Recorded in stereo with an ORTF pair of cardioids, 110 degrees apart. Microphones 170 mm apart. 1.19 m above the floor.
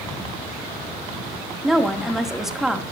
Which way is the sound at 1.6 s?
5° right.